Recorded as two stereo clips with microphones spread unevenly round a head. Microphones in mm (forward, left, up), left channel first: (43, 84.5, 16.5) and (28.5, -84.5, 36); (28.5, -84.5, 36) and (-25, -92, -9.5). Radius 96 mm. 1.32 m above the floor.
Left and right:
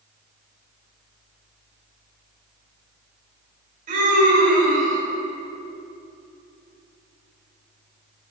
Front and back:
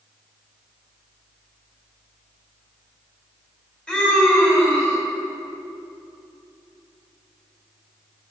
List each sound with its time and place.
3.9 s a scream: 55° right, 4.5 m